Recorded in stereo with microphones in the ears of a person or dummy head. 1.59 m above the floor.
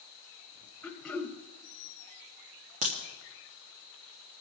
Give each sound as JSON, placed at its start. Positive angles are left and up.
{"t": 0.8, "sound": "throat clearing", "side_deg": 5, "distance_m": 1.0}
{"t": 2.8, "sound": "a crack", "side_deg": -35, "distance_m": 1.1}